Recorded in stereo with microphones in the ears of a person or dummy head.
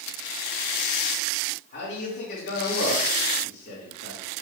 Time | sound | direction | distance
1.7 | a man speaking | 40° left (ahead or behind) | 1.6 m